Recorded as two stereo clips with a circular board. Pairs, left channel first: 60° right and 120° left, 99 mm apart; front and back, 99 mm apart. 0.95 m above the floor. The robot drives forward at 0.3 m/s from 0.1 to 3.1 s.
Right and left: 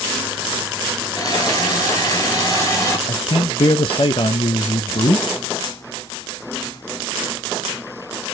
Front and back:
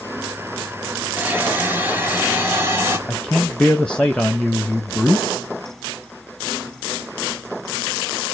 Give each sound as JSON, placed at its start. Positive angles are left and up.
{"t": 1.2, "sound": "a hiss", "azimuth_deg": -105, "distance_m": 3.0}
{"t": 3.1, "sound": "a man speaking", "azimuth_deg": -80, "distance_m": 0.7}